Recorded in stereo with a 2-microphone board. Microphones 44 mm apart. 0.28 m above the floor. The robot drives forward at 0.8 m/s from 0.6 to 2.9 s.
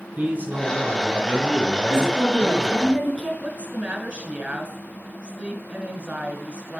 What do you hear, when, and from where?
0.2 s a man speaking: 35° right (ahead or behind), 3.5 m; by 2.9 s 25° right (ahead or behind), 5 m
1.9 s a woman speaking: 15° right (ahead or behind), 4 m
3.4 s a woman speaking: 30° right (ahead or behind), 1.2 m